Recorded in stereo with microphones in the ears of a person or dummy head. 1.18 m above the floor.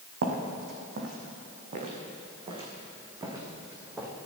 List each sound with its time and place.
0.2 s footsteps: 60° right (ahead or behind), 2.5 m; by 4.1 s 15° right (ahead or behind), 2.5 m